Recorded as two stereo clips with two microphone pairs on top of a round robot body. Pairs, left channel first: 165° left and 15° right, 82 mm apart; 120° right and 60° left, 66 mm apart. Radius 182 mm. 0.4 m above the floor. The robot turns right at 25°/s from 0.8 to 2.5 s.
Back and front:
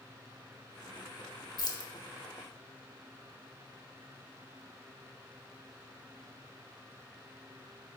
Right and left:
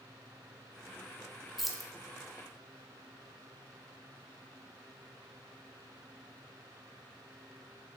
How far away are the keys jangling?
About 0.5 m.